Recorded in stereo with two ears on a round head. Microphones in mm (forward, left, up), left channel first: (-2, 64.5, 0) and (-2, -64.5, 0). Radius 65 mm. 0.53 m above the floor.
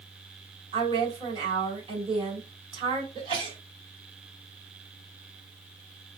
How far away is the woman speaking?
About 2.5 m.